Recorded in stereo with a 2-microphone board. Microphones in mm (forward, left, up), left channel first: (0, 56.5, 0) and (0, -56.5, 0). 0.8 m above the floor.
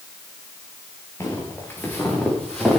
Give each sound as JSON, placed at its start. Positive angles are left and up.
{"t": 1.2, "sound": "footsteps", "side_deg": 25, "distance_m": 7.0}